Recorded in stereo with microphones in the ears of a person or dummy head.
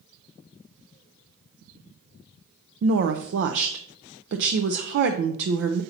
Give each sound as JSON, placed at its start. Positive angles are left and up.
{"t": 2.8, "sound": "a woman speaking", "side_deg": -60, "distance_m": 0.5}